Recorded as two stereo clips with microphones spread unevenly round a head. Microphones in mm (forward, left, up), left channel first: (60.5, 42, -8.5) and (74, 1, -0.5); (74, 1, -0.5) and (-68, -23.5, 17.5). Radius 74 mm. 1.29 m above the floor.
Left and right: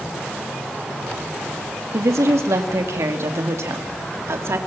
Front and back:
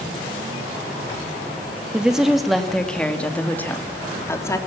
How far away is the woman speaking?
About 2.5 m.